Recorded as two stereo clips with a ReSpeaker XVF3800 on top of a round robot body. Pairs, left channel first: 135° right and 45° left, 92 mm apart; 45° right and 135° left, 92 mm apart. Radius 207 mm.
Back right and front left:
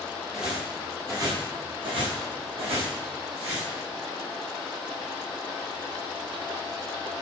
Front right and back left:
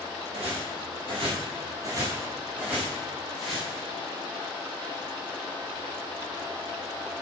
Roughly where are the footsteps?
Behind left.